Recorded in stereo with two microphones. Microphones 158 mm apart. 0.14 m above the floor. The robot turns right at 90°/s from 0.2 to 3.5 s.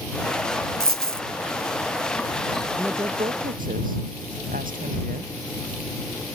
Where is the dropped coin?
105° right; by 1.2 s 65° right.